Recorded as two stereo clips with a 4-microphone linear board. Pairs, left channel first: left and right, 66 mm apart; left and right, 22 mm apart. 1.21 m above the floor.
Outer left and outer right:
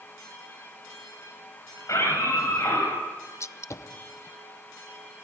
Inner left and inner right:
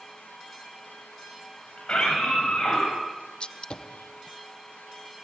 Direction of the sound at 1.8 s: 50° left (ahead or behind).